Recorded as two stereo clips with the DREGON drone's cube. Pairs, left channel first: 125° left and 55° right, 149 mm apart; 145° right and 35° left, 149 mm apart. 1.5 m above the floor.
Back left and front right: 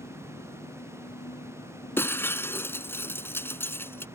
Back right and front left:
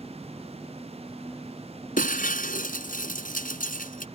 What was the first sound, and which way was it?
An engine running, 120° left.